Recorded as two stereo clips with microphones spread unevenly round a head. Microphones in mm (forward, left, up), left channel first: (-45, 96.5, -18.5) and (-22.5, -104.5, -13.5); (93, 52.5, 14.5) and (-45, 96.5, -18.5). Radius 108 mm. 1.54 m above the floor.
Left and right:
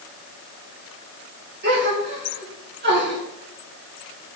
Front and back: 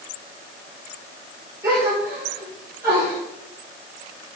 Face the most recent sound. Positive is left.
turn(degrees=-120)